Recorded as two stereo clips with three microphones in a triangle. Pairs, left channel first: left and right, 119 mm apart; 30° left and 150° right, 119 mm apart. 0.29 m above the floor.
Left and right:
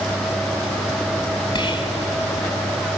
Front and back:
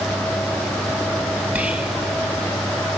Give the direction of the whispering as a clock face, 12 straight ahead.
7 o'clock.